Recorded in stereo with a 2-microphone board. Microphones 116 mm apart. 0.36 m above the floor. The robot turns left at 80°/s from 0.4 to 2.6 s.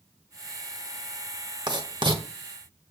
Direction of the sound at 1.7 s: 40° right (ahead or behind).